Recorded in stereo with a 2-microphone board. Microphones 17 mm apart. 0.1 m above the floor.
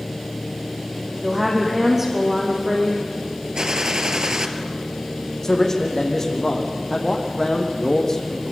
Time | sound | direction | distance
1.2 | a woman speaking | 25° right (ahead or behind) | 5 m
3.5 | a gunshot | 50° right (ahead or behind) | 2 m
5.4 | a man speaking | 25° left (ahead or behind) | 5.5 m